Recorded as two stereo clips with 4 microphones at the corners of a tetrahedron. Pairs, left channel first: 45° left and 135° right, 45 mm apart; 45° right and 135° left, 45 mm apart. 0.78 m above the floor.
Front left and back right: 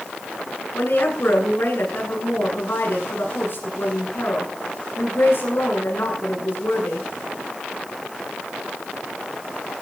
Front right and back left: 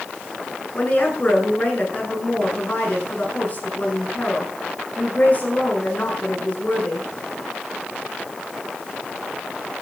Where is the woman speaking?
10° left, 9.5 m.